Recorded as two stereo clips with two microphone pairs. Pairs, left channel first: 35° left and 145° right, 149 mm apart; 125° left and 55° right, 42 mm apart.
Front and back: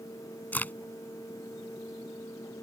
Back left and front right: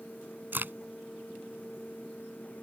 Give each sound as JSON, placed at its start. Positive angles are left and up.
{"t": 0.5, "sound": "a crack", "azimuth_deg": -45}